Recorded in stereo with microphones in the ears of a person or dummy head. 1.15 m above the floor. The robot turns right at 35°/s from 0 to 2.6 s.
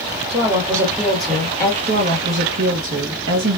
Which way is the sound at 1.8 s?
35° right (ahead or behind).